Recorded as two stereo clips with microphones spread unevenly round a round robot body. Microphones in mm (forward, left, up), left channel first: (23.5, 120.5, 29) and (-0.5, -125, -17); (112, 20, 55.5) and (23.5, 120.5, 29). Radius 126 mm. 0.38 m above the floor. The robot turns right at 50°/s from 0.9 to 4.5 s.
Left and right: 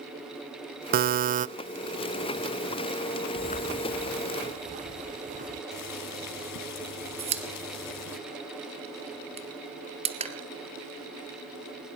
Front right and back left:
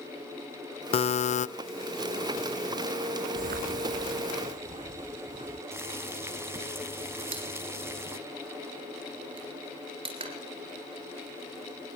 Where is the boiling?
65° left, 3 m.